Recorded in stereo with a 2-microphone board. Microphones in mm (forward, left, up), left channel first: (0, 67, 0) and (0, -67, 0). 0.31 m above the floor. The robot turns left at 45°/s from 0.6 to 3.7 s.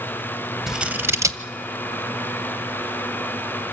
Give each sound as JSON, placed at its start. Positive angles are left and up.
{"t": 0.7, "sound": "scissors", "side_deg": -5, "distance_m": 0.9}